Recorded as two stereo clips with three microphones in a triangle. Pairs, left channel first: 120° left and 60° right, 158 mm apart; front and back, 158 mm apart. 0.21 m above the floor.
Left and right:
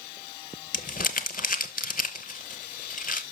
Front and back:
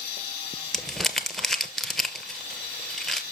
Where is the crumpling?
90° left, 0.8 m.